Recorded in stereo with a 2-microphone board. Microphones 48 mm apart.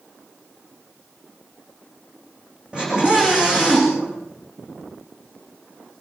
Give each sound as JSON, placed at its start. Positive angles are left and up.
{"t": 2.7, "sound": "a scream", "side_deg": -20, "distance_m": 9.0}